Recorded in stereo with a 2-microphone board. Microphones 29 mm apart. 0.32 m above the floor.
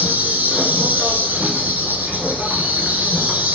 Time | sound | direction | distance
0.0 | an insect | 85° right | 0.9 m